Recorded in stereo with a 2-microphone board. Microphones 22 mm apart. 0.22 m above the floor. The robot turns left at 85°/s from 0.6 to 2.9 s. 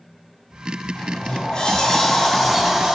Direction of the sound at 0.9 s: 120° left.